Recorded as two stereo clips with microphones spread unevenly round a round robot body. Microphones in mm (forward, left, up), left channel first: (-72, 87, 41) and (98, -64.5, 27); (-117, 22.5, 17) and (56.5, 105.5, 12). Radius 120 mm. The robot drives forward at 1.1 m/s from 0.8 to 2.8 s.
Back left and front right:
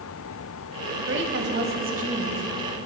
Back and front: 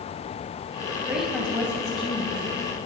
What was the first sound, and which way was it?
A woman speaking, 55° right.